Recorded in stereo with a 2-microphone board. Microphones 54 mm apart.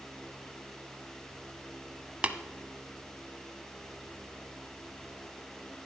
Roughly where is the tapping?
Right.